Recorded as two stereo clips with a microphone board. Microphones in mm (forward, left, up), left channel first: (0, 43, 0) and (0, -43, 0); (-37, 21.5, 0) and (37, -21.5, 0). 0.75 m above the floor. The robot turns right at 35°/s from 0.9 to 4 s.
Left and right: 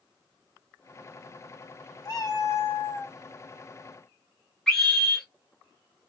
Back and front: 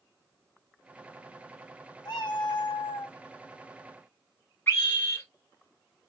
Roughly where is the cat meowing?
Behind left.